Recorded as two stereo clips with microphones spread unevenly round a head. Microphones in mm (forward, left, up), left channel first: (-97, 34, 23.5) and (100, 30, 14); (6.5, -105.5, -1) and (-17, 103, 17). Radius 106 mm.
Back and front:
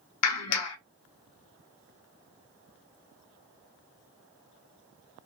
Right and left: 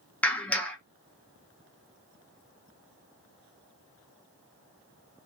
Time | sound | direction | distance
0.2 | a clap | 170° right | 0.7 m